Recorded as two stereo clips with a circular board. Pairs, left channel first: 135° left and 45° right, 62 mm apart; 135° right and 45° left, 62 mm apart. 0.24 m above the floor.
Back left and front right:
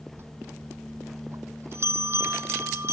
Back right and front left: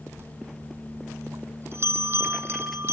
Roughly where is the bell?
Ahead.